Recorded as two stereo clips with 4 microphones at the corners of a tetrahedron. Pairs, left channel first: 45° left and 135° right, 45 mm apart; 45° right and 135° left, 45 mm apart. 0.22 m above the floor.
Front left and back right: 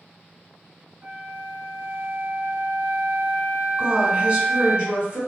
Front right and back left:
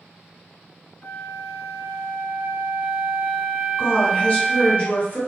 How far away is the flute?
About 0.5 m.